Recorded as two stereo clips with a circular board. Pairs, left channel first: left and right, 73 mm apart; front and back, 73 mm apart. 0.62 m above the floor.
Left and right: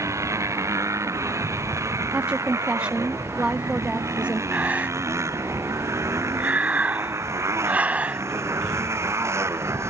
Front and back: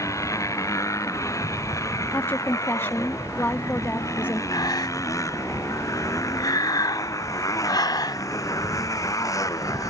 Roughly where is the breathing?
Ahead.